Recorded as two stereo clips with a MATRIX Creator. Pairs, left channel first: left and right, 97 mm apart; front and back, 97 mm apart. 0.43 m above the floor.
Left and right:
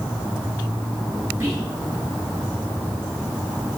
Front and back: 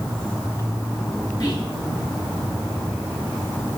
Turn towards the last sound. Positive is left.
turn(degrees=-30)